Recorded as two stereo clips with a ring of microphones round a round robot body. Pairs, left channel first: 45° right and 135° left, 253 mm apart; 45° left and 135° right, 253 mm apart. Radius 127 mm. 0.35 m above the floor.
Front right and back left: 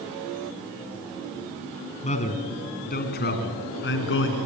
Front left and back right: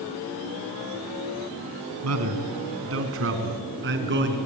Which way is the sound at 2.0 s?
110° right.